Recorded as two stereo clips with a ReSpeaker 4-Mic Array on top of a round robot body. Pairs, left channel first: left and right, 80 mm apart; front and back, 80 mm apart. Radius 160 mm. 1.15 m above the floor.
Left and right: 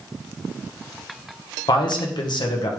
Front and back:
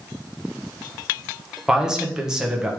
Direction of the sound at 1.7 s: 100° left.